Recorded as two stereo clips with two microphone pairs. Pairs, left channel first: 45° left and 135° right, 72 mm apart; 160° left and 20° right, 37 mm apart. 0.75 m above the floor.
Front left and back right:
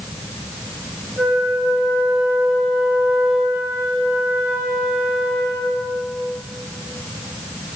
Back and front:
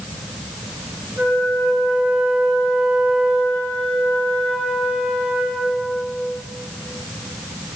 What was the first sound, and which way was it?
A flute, 45° right.